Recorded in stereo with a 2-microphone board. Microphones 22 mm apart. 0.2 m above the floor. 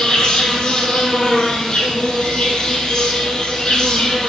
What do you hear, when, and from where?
0.0 s an insect: 40° left (ahead or behind), 0.8 m